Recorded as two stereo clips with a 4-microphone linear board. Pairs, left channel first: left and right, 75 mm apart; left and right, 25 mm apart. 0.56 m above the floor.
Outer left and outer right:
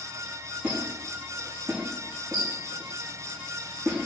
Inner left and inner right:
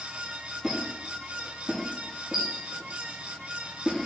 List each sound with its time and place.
0.6 s a squeak: 30° right (ahead or behind), 1.1 m